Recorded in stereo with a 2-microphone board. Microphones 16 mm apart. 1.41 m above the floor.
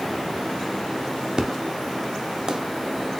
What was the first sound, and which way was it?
An explosion, 45° right (ahead or behind).